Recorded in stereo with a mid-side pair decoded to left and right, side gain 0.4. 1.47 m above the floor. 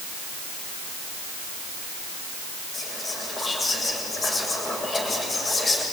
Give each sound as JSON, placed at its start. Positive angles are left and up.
{"t": 2.7, "sound": "whispering", "azimuth_deg": 35, "distance_m": 7.5}